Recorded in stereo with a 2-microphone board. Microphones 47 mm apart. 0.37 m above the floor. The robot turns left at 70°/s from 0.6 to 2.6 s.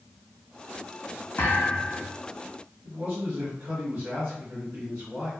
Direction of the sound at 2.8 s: 45° right (ahead or behind).